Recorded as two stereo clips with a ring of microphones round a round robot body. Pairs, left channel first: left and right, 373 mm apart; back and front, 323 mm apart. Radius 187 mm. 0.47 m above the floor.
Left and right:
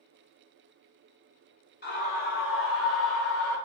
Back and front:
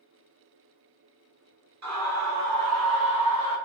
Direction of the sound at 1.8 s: 30° left.